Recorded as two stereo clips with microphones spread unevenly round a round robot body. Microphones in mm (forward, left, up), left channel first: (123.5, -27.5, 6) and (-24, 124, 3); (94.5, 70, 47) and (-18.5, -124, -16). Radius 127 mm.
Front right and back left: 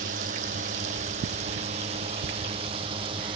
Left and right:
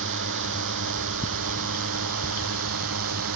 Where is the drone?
165° right; by 3.4 s 155° right.